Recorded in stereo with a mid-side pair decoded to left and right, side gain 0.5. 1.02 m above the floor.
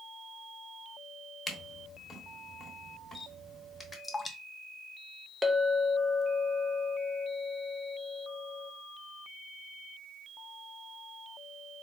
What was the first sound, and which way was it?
A camera shutter, 20° left.